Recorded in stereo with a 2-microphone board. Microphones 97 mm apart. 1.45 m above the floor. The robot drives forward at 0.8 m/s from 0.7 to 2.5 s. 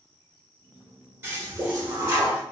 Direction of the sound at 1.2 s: 30° right (ahead or behind).